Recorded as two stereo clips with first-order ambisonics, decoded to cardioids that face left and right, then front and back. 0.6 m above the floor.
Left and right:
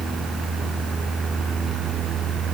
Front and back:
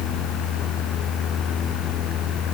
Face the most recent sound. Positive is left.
No sound to turn to.